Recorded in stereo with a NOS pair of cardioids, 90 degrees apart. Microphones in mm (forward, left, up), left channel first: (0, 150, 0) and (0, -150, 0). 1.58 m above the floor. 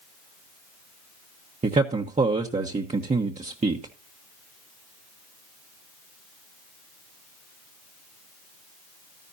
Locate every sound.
1.6 s a man speaking: 25° right, 1.3 m